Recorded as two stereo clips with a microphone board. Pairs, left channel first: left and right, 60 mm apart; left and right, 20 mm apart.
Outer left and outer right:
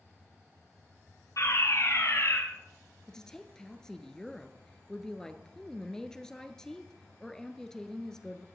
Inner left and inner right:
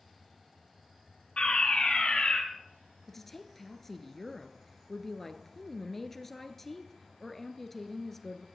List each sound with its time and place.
1.4 s a fire alarm: 60° left (ahead or behind), 4.5 m
3.1 s a woman speaking: 10° left (ahead or behind), 1.5 m